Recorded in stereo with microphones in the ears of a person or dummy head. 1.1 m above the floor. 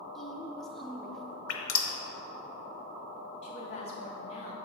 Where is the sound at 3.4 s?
35° left (ahead or behind), 1.5 m.